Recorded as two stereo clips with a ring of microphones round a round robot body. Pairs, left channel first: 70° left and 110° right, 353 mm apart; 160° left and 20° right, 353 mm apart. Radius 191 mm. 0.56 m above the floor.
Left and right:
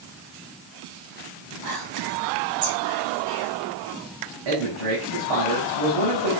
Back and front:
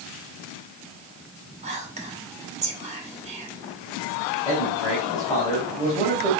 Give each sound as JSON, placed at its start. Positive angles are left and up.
{"t": 1.6, "sound": "whispering", "azimuth_deg": -95, "distance_m": 3.5}
{"t": 4.5, "sound": "a man speaking", "azimuth_deg": -125, "distance_m": 4.5}